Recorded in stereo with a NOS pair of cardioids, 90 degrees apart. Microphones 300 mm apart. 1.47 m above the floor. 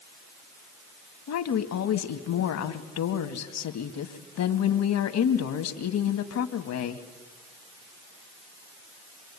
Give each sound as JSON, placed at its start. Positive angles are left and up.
{"t": 1.3, "sound": "a woman speaking", "azimuth_deg": 70, "distance_m": 2.0}